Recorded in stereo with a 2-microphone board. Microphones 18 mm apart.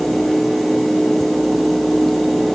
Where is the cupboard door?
I don't hear a cupboard door.